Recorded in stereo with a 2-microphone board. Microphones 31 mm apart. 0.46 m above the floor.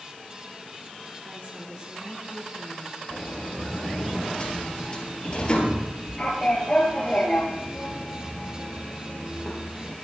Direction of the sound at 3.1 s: 30° left (ahead or behind).